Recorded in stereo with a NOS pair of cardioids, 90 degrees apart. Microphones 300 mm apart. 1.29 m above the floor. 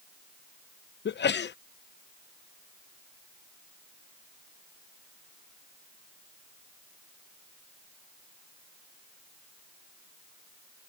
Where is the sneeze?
35° left.